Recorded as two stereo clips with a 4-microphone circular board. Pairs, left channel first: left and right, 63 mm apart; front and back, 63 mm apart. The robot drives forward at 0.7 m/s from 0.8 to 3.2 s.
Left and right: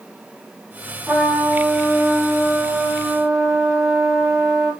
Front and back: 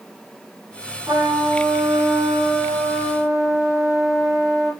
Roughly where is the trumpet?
Behind.